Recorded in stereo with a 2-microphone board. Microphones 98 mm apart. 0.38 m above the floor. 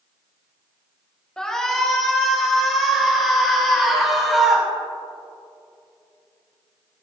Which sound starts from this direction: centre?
A shout, at 1.4 s.